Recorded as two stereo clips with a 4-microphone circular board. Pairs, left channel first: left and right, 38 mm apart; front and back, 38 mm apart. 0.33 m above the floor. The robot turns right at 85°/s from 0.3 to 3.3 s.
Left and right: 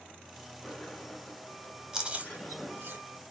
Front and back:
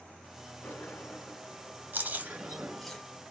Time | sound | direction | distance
0.6 | a sliding door | 10° right | 2 m
1.9 | chewing | 165° right | 1.0 m